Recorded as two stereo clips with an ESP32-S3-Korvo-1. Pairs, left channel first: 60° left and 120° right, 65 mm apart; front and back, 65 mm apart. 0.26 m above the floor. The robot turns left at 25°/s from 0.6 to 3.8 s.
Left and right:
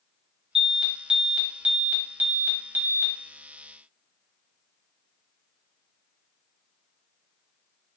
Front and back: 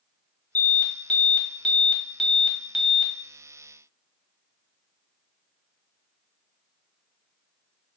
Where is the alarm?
50° right, 1.1 m; by 3.1 s 110° right, 1.1 m.